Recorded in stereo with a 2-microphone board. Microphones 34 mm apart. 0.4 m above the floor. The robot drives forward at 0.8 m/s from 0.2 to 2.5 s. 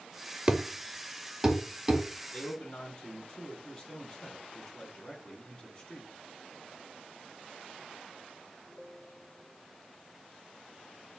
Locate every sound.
0.5 s a thud: 30° right (ahead or behind), 0.5 m; by 2.0 s 10° right (ahead or behind), 1.7 m
2.3 s a man speaking: 30° left (ahead or behind), 3 m